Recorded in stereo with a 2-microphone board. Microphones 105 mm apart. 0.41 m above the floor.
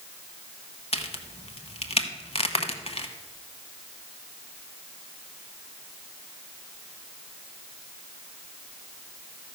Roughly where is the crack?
Left.